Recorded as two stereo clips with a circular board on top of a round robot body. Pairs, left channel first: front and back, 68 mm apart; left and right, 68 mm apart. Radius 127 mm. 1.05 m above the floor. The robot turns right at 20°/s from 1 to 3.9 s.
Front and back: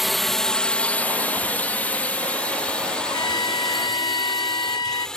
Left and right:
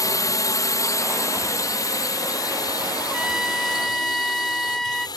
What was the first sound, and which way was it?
A drone, 90° left.